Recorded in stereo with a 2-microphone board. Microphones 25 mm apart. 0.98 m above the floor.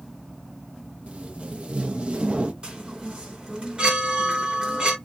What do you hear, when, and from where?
1.1 s tape being pulled: 45° right (ahead or behind), 0.7 m
2.6 s a chime: 40° right (ahead or behind), 1.4 m